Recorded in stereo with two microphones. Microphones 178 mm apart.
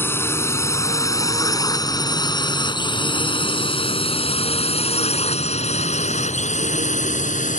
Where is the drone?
15° left (ahead or behind); by 7.6 s 45° left (ahead or behind).